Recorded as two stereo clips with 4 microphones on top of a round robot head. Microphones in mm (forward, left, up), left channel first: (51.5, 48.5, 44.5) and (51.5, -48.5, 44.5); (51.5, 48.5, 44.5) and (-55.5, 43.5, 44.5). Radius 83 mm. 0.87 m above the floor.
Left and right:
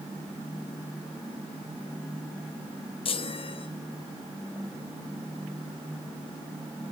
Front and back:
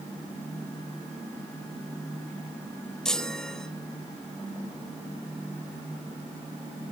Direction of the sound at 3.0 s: 85° left.